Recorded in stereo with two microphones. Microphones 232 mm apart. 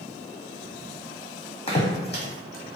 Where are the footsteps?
25° left (ahead or behind), 0.8 m; by 2.8 s 70° left (ahead or behind), 1.0 m.